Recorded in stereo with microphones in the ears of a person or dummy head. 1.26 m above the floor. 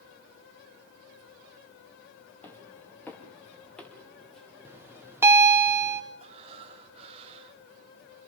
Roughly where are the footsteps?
Centre.